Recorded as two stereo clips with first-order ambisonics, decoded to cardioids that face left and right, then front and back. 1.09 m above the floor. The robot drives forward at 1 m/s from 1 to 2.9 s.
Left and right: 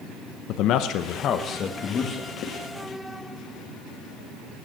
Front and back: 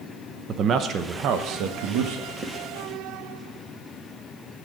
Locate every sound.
0.5 s a man speaking: 125° left, 0.8 m; by 2.3 s 160° left, 1.9 m
2.4 s writing: 125° left, 1.5 m; by 2.6 s 130° left, 1.6 m